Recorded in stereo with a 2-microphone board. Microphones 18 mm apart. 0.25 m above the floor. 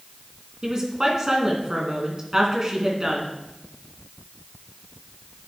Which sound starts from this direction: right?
A woman speaking, at 0.6 s.